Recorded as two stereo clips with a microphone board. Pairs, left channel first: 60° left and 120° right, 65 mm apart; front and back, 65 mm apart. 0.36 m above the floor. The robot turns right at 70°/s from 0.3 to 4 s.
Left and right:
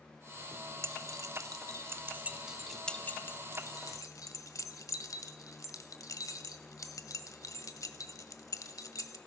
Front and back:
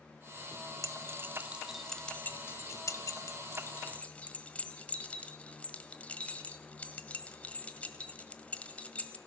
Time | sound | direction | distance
0.8 | keys jangling | 160° right | 1.3 m